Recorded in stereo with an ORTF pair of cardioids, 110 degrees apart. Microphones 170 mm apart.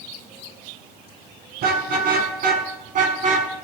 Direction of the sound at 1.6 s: 65° right.